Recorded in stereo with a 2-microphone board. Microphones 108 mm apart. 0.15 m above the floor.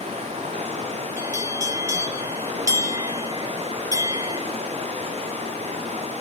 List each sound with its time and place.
0.0 s running water: 70° right (ahead or behind), 6 m
1.2 s a bell: 25° right (ahead or behind), 1.9 m